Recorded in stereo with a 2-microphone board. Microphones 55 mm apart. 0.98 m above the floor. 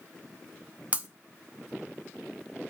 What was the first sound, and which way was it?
Breaking glass, 25° right (ahead or behind).